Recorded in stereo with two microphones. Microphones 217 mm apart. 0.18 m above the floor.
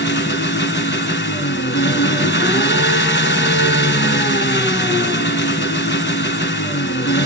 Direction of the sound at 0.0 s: 55° left (ahead or behind).